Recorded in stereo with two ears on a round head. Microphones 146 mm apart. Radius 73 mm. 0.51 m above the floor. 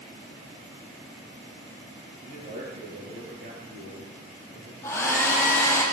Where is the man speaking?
55° right (ahead or behind), 9.5 m.